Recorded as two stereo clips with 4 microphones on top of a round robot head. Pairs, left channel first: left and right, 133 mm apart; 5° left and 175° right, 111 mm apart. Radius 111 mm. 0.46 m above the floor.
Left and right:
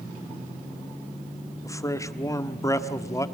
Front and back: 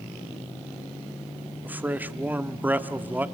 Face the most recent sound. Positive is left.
turn(degrees=125)